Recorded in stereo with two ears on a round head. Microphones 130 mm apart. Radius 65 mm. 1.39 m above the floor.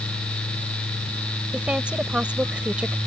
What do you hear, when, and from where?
1.5 s a woman speaking: 10° right (ahead or behind)